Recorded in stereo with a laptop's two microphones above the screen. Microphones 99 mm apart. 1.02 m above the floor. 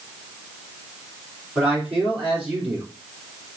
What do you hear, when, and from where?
1.6 s a man speaking: 15° right (ahead or behind), 2.5 m